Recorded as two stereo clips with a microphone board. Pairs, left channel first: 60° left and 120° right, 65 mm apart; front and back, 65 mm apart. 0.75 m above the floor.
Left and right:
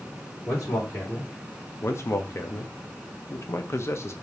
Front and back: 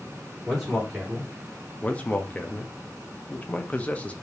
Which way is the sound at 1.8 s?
55° left.